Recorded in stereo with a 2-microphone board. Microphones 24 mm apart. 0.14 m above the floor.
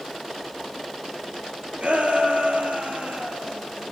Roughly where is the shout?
Right.